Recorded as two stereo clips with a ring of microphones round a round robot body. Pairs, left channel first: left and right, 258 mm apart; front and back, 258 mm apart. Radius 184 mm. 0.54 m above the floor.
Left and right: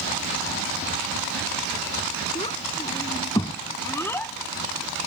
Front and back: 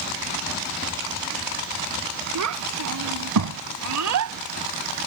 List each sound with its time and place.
2.4 s a child speaking: 165° left; by 5.1 s straight behind